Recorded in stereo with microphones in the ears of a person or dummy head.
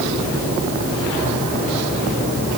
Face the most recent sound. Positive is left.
No sound to turn to.